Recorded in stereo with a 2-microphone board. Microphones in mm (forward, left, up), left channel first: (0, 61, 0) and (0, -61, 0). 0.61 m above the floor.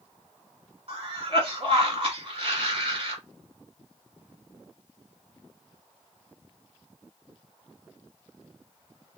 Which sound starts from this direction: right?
A cough, at 0.9 s.